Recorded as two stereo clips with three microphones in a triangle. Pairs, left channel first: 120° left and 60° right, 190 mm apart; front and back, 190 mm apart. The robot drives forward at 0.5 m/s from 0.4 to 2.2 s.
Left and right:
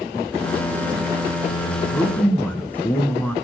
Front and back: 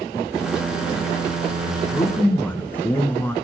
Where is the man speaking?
30° left, 1.2 m; by 3.4 s 60° left, 1.1 m.